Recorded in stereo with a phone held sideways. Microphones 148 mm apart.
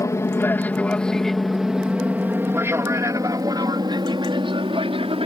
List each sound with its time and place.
0.0 s an aircraft: 20° left (ahead or behind); by 5.2 s 40° right (ahead or behind)